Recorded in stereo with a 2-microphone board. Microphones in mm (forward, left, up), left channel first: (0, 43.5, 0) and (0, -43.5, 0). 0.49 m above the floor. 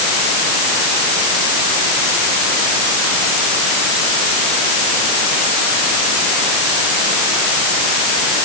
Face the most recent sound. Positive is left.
No sound to turn to.